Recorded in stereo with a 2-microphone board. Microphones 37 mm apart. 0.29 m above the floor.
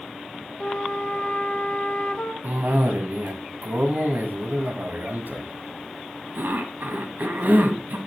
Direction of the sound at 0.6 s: 20° left (ahead or behind).